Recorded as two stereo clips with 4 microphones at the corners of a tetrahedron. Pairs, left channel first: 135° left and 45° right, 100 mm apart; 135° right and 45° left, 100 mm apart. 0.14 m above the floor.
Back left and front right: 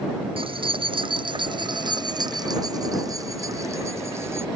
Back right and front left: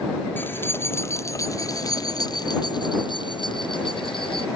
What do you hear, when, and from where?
0.4 s keys jangling: 65° right; by 4.5 s 110° right